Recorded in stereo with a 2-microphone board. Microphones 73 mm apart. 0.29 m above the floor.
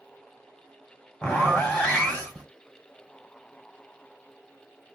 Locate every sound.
1.2 s a zipper: 15° left (ahead or behind), 1.6 m